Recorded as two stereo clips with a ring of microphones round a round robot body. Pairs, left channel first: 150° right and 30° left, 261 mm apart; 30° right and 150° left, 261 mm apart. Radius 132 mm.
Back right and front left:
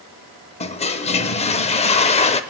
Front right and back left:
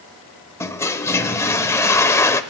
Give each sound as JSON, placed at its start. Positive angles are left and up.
{"t": 0.6, "sound": "a toilet flushing", "azimuth_deg": -100, "distance_m": 0.5}